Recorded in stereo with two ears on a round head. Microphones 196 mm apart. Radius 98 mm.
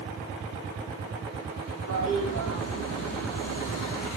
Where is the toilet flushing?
80° left, 7 m.